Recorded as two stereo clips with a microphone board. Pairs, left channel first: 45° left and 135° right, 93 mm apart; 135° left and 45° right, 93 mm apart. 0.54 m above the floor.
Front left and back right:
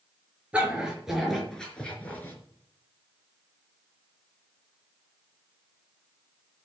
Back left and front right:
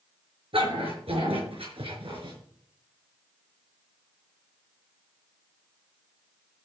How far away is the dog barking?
About 4.5 m.